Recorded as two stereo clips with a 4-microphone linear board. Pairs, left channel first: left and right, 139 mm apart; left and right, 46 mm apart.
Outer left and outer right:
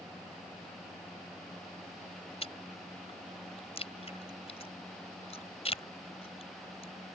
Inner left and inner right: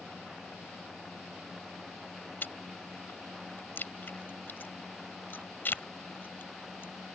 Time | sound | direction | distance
2.4 | chewing | 45° left (ahead or behind) | ?